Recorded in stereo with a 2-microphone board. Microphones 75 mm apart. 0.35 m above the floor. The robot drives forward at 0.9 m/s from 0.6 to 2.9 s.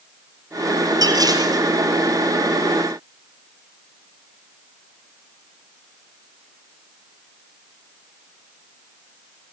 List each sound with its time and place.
1.0 s dishes clattering: 60° right (ahead or behind), 5 m; by 1.6 s 55° right (ahead or behind), 5.5 m